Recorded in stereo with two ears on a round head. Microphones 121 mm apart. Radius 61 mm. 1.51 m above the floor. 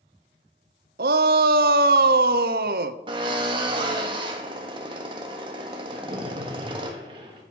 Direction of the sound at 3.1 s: 35° right (ahead or behind).